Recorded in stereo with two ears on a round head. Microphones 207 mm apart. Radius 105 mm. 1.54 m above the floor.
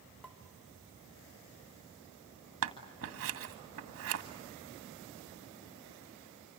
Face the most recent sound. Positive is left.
turn(degrees=-65)  # may be behind; listen again after turning